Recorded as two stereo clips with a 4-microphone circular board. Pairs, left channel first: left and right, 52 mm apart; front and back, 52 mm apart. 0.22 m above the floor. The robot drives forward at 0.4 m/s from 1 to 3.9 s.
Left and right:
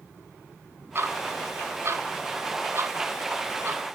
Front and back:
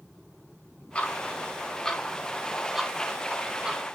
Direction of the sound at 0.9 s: 60° right.